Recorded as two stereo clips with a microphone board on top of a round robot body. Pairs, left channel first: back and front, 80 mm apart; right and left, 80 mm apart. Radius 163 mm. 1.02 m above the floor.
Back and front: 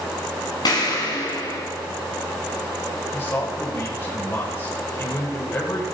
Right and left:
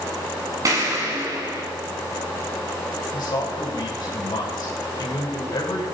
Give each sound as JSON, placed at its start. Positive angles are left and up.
{"t": 0.7, "sound": "an explosion", "azimuth_deg": 140, "distance_m": 3.0}
{"t": 3.1, "sound": "a man speaking", "azimuth_deg": -125, "distance_m": 7.0}